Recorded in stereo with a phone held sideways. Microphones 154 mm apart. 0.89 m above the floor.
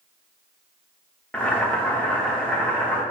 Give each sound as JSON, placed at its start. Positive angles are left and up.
{"t": 1.3, "sound": "boiling", "side_deg": 10, "distance_m": 0.8}